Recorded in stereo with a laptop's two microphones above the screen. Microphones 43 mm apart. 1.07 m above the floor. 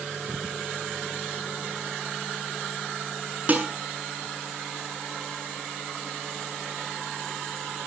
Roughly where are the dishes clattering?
Right.